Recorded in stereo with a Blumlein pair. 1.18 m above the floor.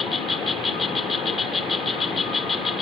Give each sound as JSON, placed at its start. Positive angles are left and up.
{"t": 0.0, "sound": "an insect", "azimuth_deg": 15}